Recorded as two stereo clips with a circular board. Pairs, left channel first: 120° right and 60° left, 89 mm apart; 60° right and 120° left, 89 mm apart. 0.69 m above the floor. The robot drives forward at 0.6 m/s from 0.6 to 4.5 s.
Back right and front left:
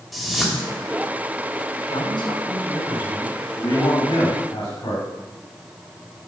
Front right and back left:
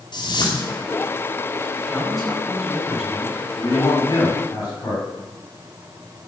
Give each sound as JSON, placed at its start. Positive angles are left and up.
{"t": 0.1, "sound": "a whoosh", "azimuth_deg": -30, "distance_m": 3.0}
{"t": 1.9, "sound": "a man speaking", "azimuth_deg": -150, "distance_m": 5.0}
{"t": 3.6, "sound": "a man speaking", "azimuth_deg": -110, "distance_m": 4.0}